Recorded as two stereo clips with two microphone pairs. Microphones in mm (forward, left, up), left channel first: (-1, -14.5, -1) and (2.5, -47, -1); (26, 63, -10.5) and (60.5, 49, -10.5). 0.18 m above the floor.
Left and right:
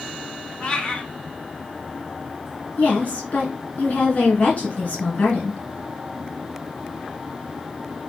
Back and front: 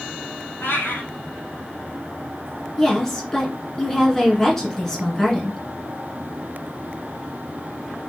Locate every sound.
0.6 s a cat meowing: 155° left, 2 m
2.8 s a woman speaking: 80° left, 2.5 m